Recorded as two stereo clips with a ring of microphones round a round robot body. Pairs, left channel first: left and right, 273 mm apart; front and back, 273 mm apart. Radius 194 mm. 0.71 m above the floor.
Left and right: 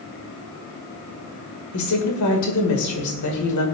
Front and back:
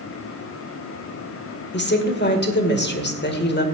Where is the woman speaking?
50° left, 2 m.